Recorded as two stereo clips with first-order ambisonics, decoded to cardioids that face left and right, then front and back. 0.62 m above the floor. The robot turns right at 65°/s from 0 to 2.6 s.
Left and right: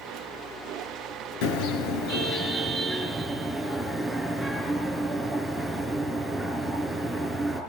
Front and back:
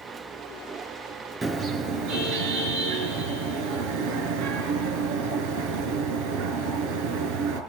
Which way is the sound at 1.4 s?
100° left.